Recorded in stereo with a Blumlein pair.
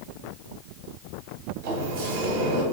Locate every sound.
1.6 s a sliding door: 50° right, 0.7 m